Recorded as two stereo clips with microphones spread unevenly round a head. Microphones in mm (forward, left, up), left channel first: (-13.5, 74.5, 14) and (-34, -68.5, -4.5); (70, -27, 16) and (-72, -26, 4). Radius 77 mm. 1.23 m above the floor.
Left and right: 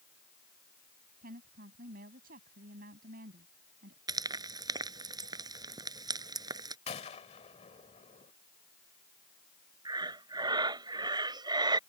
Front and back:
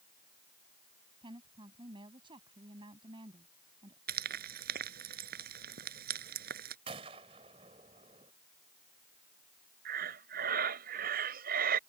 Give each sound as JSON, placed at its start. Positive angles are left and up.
{"t": 1.2, "sound": "a woman speaking", "azimuth_deg": -125}
{"t": 4.1, "sound": "frying", "azimuth_deg": -165}
{"t": 6.9, "sound": "a gunshot", "azimuth_deg": 120}
{"t": 9.8, "sound": "breathing", "azimuth_deg": -160}